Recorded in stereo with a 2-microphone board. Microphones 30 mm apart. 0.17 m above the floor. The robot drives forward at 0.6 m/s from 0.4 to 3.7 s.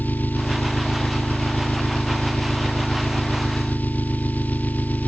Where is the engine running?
80° left; by 5.1 s 70° left (ahead or behind).